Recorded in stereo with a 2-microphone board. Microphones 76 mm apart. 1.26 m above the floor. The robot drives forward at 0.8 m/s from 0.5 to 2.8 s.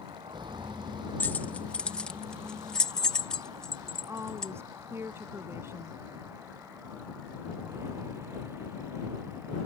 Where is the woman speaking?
35° right (ahead or behind).